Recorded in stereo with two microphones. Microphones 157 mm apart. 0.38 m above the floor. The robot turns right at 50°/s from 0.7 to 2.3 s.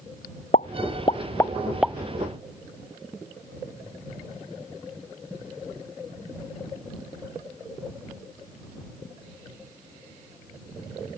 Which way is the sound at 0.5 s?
50° left (ahead or behind).